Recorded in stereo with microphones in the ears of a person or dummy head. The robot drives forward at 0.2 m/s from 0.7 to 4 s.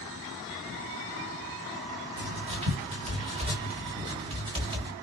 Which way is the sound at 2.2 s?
30° right (ahead or behind).